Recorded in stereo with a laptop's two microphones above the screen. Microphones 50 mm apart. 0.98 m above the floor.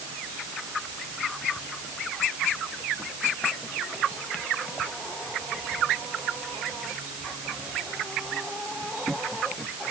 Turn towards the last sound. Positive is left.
No sound to turn to.